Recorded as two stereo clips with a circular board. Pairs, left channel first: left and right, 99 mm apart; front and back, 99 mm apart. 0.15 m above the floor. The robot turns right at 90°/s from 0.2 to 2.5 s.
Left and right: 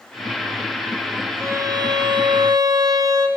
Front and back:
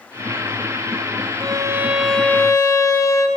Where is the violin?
150° right, 1.0 m; by 3.3 s 50° right, 1.0 m.